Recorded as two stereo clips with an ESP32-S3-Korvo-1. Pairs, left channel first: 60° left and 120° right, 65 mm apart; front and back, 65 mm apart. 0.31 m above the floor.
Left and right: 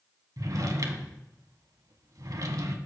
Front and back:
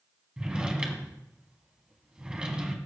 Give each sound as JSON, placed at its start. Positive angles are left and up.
{"t": 0.4, "sound": "a drawer", "azimuth_deg": -105, "distance_m": 1.1}